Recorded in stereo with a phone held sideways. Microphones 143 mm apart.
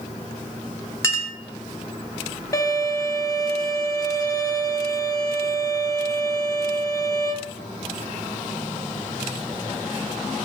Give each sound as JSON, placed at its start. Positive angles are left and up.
{"t": 1.0, "sound": "a clink", "side_deg": 20, "distance_m": 1.2}
{"t": 2.5, "sound": "a violin", "side_deg": 25, "distance_m": 1.1}